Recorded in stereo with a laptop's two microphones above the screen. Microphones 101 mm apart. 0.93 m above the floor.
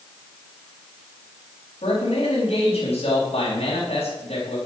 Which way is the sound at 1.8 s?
85° left.